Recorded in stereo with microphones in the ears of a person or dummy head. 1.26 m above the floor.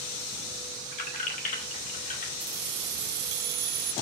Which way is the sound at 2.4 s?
55° right (ahead or behind).